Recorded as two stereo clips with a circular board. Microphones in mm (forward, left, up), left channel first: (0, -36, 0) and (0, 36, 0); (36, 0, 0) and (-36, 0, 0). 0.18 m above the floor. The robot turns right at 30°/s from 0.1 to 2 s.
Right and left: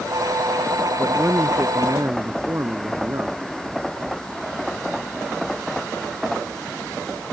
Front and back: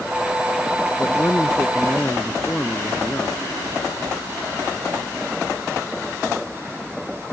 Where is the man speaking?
30° left; by 3.4 s 65° left.